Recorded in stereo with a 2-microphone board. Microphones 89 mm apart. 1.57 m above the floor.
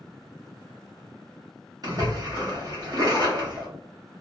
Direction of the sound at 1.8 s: 45° right (ahead or behind).